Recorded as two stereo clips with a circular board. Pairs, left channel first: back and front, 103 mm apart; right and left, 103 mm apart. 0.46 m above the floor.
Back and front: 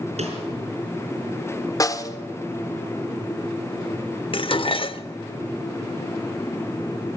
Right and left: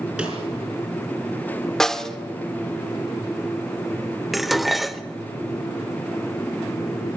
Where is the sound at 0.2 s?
10° left, 5 m.